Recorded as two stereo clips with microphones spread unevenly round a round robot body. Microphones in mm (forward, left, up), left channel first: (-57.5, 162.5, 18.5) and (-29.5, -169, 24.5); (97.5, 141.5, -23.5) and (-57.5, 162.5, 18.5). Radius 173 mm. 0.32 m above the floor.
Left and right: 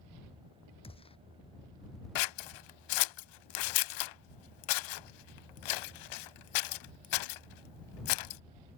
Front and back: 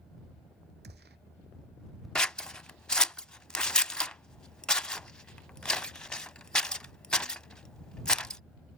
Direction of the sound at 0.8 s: 170° left.